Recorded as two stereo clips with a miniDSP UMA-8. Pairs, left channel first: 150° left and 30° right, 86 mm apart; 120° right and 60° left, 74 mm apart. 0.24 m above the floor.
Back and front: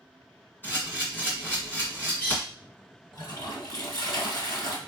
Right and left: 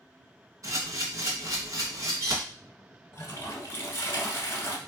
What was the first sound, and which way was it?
A camera shutter, 90° left.